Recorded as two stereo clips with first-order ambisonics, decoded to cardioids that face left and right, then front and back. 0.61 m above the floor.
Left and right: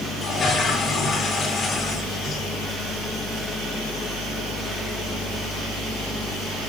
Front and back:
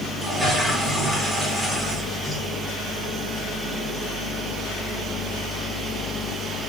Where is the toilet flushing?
120° left, 0.9 m.